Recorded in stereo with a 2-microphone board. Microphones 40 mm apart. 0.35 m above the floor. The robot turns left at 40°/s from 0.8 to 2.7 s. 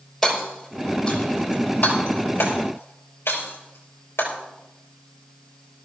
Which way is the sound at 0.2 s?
Centre (ahead or behind).